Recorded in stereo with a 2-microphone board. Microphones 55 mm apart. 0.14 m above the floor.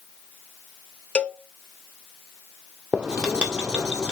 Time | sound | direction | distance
1.1 | a cowbell | 20° left (ahead or behind) | 0.6 m
2.9 | writing | 25° right (ahead or behind) | 1.6 m